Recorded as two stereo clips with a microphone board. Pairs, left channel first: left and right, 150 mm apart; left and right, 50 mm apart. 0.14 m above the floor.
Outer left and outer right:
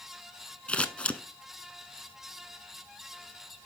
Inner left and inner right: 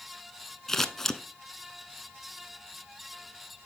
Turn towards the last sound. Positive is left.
turn(degrees=10)  # may be behind; listen again after turning